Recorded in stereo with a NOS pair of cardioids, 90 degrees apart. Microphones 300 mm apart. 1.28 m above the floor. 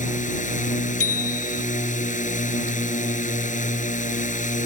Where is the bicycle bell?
50° left.